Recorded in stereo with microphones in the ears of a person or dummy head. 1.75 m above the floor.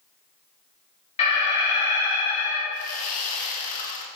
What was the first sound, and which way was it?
An alarm, 35° left (ahead or behind).